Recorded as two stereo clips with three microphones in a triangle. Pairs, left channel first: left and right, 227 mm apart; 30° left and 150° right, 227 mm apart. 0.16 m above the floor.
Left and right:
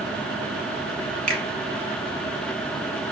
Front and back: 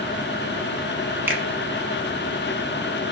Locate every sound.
1.3 s a finger snap: 75° right, 1.0 m